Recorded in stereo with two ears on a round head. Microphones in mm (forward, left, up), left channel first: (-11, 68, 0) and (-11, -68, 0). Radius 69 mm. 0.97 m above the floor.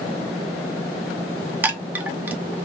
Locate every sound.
1.6 s a chime: 10° right (ahead or behind), 0.6 m